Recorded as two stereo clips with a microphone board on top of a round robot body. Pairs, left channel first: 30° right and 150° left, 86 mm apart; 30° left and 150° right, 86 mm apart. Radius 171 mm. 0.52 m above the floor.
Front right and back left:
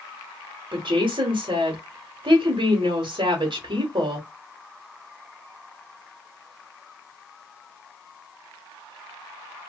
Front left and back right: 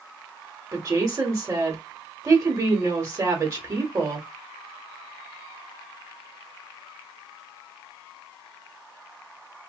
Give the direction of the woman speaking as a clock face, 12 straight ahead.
7 o'clock.